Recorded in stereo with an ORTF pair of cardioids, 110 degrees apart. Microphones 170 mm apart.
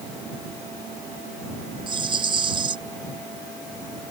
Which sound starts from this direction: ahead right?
A rattle, at 1.9 s.